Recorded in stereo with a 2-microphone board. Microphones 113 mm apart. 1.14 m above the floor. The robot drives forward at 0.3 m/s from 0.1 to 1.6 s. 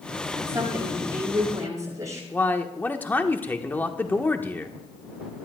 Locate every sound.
0.4 s a woman speaking: 25° right (ahead or behind), 8.5 m; by 2.2 s 30° right (ahead or behind), 8 m
2.3 s a man speaking: 15° left (ahead or behind), 1.2 m